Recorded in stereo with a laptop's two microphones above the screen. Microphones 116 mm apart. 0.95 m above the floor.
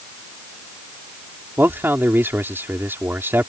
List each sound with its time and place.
1.6 s a man speaking: 20° right (ahead or behind)